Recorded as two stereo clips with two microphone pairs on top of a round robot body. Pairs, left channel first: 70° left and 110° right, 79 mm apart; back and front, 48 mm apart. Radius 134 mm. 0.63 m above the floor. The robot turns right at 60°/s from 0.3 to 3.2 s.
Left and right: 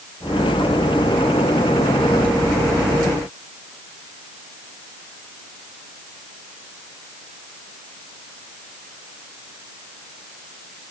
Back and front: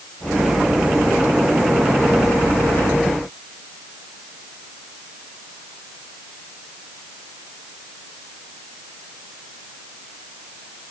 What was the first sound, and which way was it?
Only background noise.